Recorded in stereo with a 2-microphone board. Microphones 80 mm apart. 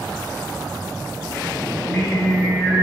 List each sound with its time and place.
1.7 s singing: 10° left (ahead or behind), 2.5 m